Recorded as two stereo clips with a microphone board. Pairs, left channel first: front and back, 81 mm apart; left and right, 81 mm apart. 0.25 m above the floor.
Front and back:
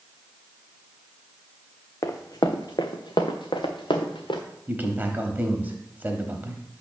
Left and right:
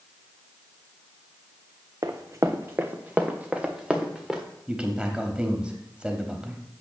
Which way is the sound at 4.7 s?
150° right.